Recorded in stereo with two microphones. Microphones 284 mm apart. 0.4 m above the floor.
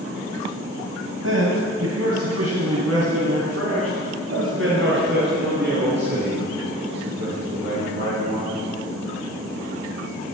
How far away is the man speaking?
About 2.0 m.